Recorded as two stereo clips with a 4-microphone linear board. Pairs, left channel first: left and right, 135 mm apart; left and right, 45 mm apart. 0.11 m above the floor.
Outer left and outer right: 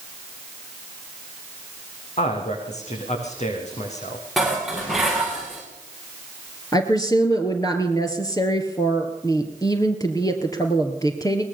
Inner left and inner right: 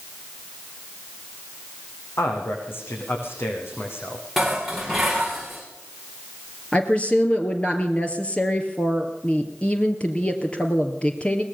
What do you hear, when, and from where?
2.2 s a man speaking: 60° left (ahead or behind), 7 m
4.4 s dishes clattering: centre (ahead or behind), 6.5 m
6.7 s a woman speaking: 25° left (ahead or behind), 2.5 m